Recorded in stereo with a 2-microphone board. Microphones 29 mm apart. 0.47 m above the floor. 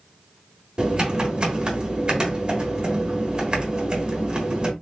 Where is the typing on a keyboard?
35° right (ahead or behind), 1.4 m.